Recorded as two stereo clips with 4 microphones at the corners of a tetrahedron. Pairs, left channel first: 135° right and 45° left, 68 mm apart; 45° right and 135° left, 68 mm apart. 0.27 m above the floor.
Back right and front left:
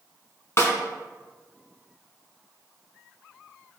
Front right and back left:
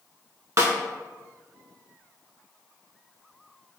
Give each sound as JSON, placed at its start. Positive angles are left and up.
{"t": 0.6, "sound": "a snare drum", "azimuth_deg": 175, "distance_m": 0.6}